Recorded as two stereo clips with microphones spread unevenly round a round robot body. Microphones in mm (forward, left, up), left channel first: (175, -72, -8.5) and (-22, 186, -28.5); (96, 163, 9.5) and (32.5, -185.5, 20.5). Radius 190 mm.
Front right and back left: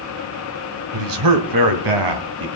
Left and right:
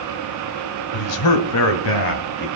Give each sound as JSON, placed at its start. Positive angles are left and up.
{"t": 0.9, "sound": "a man speaking", "azimuth_deg": 110, "distance_m": 2.5}